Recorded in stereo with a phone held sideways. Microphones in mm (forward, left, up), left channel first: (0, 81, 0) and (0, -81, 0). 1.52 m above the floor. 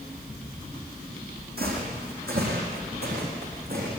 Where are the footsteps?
75° right (ahead or behind), 5 m.